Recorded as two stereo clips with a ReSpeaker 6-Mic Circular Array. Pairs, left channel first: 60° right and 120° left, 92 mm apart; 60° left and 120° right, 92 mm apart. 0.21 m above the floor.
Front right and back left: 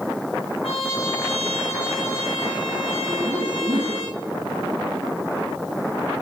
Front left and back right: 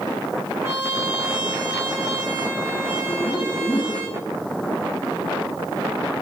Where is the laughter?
110° left, 5 m.